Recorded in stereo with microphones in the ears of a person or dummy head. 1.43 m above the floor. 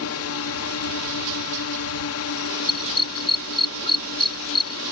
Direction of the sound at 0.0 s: 70° left (ahead or behind).